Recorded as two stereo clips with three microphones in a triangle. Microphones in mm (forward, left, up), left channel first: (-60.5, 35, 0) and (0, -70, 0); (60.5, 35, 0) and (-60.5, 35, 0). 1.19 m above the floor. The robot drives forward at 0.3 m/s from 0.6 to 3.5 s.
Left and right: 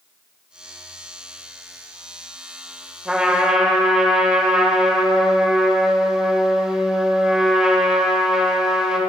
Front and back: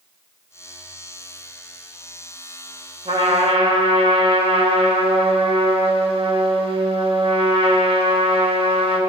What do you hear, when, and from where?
3.0 s a trumpet: 145° right, 2.5 m